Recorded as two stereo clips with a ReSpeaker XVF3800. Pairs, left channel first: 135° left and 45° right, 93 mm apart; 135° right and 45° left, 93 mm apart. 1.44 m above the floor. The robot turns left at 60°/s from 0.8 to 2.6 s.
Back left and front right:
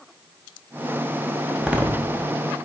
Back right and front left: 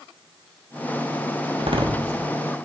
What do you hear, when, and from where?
1.6 s a door slam: 40° left, 1.0 m; by 2.3 s 5° right, 1.0 m